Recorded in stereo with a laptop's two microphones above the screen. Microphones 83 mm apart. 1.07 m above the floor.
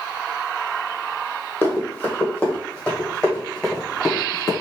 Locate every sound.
1.6 s running footsteps: 25° left (ahead or behind), 1.5 m; by 4.5 s 5° left (ahead or behind), 2.5 m